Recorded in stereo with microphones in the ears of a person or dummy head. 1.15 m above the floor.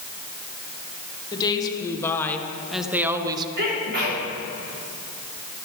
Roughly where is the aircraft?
No aircraft in this recording.